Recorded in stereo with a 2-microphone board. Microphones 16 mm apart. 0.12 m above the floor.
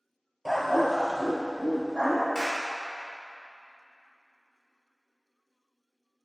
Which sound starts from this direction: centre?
A dog barking, at 0.5 s.